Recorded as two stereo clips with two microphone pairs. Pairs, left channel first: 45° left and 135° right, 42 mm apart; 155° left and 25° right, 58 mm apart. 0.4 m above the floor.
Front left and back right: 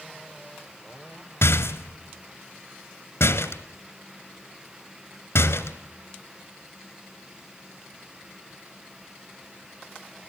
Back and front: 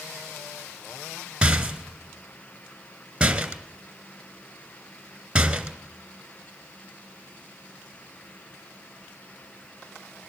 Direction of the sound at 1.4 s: 50° left.